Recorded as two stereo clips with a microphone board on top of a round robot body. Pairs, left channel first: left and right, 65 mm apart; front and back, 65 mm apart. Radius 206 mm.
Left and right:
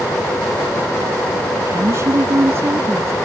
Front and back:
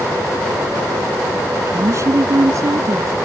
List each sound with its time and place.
1.6 s a woman speaking: 135° right; by 3.1 s 145° right